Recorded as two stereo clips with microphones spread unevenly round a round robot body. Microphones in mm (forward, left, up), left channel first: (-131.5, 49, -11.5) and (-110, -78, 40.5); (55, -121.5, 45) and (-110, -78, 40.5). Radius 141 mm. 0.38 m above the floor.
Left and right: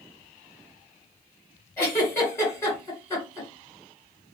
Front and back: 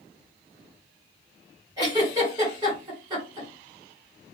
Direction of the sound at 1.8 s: 110° left.